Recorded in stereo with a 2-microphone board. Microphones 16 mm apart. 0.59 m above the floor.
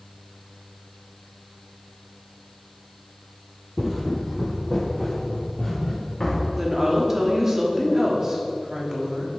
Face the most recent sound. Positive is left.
turn(degrees=-25)  # may be behind; listen again after turning